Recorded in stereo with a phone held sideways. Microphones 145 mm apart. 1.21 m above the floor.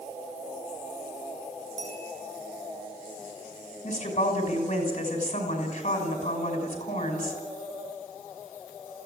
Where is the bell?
55° left (ahead or behind), 8.5 m.